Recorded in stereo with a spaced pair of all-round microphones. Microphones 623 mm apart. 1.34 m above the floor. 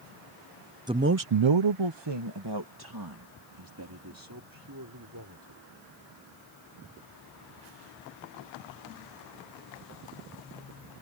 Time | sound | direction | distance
0.9 | a man speaking | 5° right (ahead or behind) | ?